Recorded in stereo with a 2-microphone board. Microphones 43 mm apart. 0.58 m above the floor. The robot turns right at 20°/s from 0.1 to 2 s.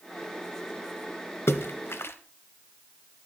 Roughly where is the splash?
Left.